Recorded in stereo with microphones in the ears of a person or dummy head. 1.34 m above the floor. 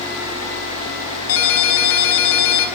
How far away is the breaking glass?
No breaking glass in this recording.